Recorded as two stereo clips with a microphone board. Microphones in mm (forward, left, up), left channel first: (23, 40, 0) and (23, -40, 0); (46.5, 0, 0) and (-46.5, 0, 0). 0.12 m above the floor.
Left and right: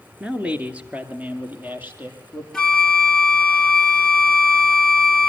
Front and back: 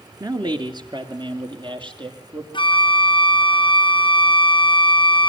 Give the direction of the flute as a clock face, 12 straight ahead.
12 o'clock.